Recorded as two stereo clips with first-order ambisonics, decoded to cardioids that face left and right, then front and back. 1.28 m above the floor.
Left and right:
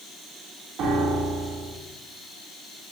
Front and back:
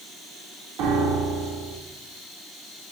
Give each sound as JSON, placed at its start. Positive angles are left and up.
{"t": 0.8, "sound": "a piano", "azimuth_deg": -140, "distance_m": 1.5}